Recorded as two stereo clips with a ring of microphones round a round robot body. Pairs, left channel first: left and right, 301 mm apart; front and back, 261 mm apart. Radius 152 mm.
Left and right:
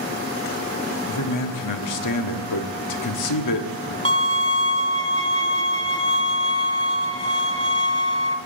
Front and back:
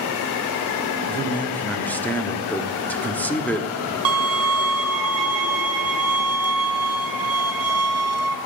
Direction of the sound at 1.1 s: 85° left.